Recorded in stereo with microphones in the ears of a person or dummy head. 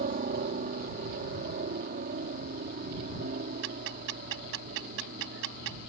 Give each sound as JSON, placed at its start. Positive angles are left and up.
{"t": 0.0, "sound": "a helicopter", "side_deg": -40}
{"t": 3.6, "sound": "ticking", "side_deg": -65}